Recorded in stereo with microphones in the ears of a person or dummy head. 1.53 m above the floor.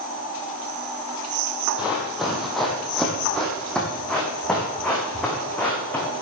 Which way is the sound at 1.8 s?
5° right (ahead or behind).